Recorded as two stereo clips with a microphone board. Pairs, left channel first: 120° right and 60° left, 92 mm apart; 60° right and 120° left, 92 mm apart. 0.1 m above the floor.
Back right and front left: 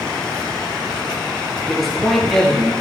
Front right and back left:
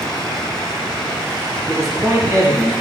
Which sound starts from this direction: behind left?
A man speaking, at 1.7 s.